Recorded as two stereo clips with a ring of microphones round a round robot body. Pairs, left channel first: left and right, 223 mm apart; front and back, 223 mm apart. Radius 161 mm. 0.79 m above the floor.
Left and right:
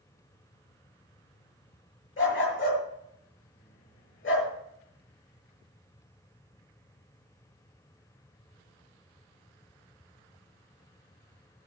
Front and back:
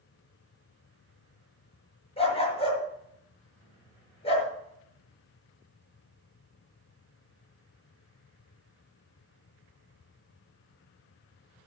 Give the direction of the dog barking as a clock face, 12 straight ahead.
10 o'clock.